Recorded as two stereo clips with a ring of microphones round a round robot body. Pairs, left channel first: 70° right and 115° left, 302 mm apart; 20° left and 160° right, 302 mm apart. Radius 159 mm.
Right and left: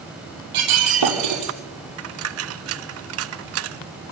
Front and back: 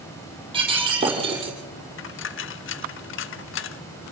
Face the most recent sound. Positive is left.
turn(degrees=70)